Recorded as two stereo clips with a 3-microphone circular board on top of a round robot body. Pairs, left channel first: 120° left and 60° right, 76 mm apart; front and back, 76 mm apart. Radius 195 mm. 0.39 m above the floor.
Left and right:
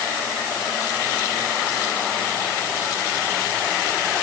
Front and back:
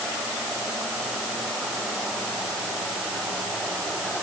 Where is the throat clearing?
I don't hear throat clearing.